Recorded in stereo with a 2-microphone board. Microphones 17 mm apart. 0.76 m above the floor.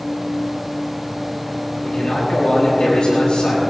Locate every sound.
1.8 s a man speaking: 80° left, 7.5 m